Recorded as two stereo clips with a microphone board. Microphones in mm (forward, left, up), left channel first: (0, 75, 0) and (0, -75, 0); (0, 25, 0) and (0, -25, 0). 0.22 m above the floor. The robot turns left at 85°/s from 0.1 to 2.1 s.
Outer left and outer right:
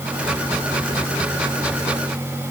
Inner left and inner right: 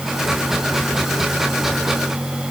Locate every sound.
Only background noise.